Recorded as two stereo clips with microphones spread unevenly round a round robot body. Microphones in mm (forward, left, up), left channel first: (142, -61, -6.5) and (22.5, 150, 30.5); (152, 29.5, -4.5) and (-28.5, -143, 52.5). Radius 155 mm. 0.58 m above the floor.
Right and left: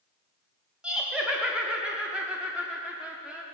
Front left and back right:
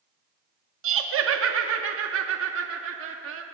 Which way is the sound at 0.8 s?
145° right.